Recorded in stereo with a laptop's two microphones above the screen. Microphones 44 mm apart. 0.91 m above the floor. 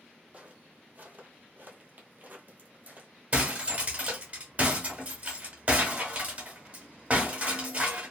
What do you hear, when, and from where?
0.3 s footsteps: 30° right (ahead or behind), 1.4 m; by 3.1 s 40° right (ahead or behind), 1.5 m
3.3 s breaking glass: 30° right (ahead or behind), 1.1 m